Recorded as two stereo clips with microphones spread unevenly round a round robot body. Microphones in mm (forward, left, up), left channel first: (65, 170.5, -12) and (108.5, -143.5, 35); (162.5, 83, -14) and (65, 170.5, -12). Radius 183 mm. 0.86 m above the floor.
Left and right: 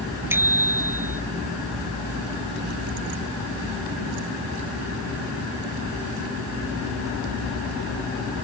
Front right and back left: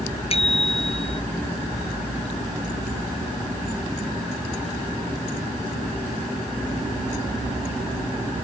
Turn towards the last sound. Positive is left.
turn(degrees=0)